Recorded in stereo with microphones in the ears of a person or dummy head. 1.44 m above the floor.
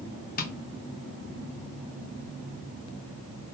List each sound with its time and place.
0.4 s tapping: 45° left (ahead or behind), 0.7 m